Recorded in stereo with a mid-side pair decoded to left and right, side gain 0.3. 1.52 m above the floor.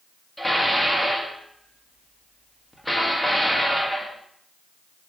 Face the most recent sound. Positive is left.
turn(degrees=5)